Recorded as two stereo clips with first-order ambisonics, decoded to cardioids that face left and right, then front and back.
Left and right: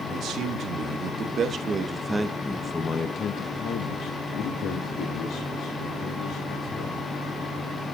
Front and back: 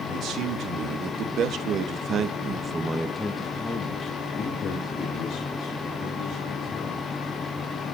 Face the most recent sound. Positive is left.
turn(degrees=55)